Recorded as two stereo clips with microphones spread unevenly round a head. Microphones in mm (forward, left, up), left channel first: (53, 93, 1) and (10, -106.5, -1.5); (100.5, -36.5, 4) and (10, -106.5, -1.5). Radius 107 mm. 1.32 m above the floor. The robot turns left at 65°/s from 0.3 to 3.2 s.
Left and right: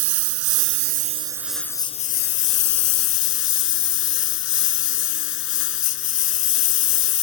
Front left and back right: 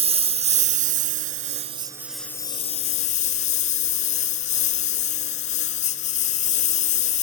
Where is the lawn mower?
115° right; by 7.2 s 60° left.